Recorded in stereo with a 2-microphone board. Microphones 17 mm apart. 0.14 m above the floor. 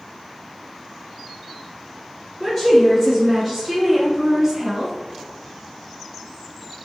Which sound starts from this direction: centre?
A woman speaking, at 2.4 s.